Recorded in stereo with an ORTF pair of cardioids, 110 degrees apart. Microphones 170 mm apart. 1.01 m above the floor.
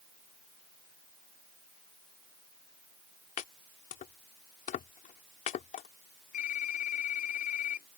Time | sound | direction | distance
3.4 | chopping | 55° left | ?
6.3 | typing on a keyboard | 55° left | ?